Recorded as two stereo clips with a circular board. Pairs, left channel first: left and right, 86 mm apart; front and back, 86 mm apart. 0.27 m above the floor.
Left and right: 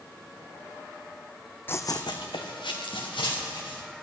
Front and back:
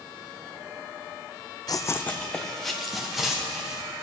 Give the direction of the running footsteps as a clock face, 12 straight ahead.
11 o'clock.